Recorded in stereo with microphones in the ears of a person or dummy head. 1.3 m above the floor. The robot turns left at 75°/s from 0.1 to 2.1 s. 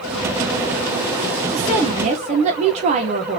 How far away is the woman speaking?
About 1.5 m.